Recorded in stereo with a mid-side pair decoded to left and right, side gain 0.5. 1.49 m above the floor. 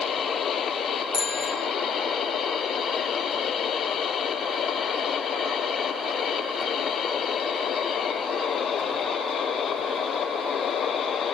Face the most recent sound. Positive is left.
turn(degrees=30)